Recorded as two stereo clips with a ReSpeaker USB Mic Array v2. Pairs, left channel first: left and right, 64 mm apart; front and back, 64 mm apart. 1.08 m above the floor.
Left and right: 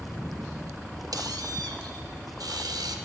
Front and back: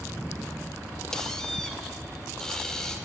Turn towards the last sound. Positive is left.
turn(degrees=-85)